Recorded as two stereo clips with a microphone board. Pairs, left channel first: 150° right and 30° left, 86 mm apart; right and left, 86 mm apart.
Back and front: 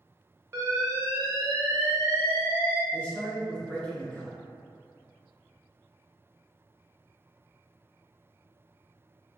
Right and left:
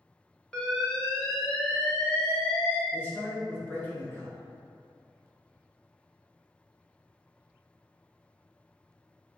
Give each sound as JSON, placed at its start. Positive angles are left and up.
{"t": 0.5, "sound": "an alarm", "azimuth_deg": -10, "distance_m": 0.8}
{"t": 2.9, "sound": "a man speaking", "azimuth_deg": -95, "distance_m": 0.9}